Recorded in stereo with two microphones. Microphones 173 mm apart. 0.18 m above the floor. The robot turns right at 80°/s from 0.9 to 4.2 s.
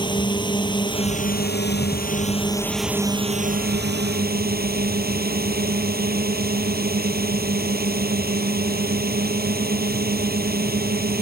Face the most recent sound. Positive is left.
turn(degrees=-70)